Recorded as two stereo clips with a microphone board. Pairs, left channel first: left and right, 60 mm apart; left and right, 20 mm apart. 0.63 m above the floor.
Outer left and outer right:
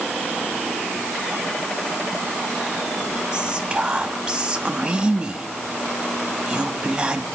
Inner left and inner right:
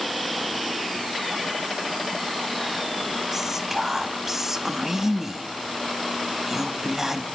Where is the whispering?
15° right (ahead or behind), 0.8 m.